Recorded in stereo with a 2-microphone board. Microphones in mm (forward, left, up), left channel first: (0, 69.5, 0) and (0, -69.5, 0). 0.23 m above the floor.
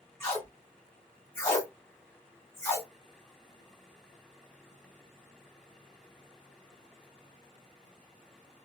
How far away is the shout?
I don't hear a shout.